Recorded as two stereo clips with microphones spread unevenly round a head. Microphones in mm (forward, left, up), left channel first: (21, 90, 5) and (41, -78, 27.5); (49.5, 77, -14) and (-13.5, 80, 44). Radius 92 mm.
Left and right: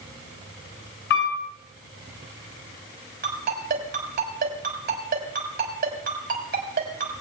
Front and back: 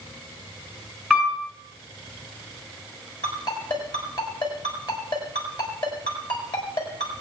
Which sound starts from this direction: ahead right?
A ringtone, at 3.2 s.